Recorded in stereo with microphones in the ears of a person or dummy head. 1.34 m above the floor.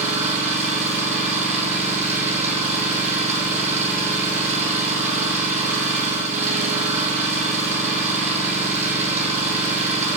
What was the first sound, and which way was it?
An engine running, 35° right (ahead or behind).